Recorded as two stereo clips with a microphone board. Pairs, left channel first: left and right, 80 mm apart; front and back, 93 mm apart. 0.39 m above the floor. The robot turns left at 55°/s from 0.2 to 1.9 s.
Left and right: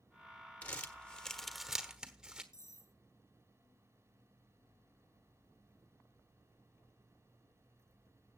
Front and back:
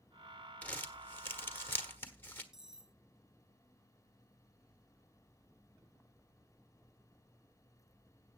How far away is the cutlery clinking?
About 0.6 m.